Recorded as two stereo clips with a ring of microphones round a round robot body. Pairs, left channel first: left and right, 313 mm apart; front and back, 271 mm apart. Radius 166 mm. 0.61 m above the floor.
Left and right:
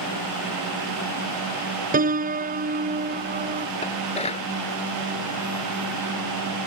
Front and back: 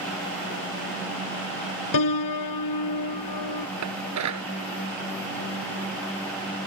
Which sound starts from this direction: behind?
Dishes clattering, at 3.8 s.